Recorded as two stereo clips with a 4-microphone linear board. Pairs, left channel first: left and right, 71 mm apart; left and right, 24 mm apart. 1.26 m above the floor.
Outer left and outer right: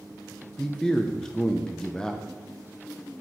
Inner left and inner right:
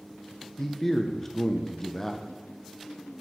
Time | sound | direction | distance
0.6 | a man speaking | 10° left (ahead or behind) | 0.6 m